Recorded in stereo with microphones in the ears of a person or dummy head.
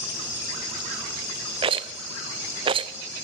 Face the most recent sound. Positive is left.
turn(degrees=-25)  # may be behind; listen again after turning